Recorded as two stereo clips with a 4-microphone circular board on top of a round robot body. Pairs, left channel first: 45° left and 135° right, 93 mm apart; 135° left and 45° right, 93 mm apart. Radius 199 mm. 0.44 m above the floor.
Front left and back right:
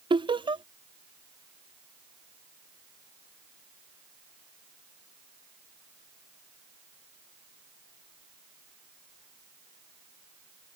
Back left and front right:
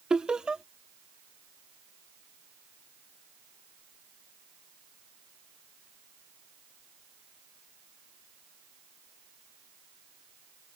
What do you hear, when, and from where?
0.1 s laughter: 125° right